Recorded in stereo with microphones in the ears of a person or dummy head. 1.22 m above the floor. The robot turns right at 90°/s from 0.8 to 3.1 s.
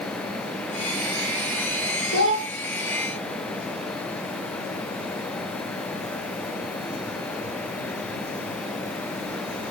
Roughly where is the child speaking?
Left.